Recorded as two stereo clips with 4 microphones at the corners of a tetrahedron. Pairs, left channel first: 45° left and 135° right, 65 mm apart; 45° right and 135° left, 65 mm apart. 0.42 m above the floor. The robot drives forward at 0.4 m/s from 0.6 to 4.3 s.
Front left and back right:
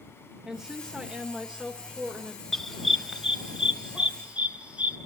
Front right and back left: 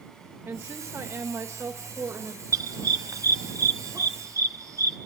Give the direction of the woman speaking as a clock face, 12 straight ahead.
7 o'clock.